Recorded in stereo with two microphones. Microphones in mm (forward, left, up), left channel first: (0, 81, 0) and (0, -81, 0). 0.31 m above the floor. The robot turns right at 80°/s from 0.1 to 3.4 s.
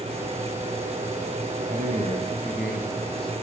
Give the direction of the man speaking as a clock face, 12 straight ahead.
3 o'clock.